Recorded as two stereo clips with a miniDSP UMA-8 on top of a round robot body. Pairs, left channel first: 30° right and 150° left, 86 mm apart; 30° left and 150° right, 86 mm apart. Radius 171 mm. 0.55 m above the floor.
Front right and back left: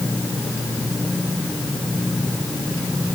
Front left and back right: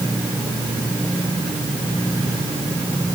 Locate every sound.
Only background noise.